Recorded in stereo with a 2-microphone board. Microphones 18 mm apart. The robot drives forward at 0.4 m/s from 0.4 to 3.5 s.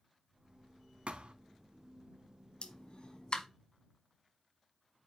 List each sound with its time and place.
1.1 s a thud: 75° right (ahead or behind), 0.7 m; by 1.3 s 80° right, 0.7 m
2.6 s a pop: 60° left (ahead or behind), 0.8 m; by 3.5 s 45° left (ahead or behind), 1.0 m